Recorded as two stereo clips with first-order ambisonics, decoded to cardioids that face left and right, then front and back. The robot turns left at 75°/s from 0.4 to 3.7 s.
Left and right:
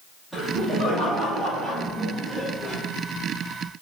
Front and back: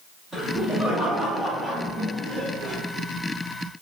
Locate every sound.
0.3 s laughter: 160° left, 1.3 m; by 2.8 s 15° right, 1.3 m